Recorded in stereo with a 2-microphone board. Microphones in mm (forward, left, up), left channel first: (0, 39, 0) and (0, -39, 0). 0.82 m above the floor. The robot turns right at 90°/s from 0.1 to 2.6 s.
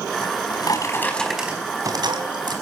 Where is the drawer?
85° left, 4 m; by 2.5 s 65° right, 4 m.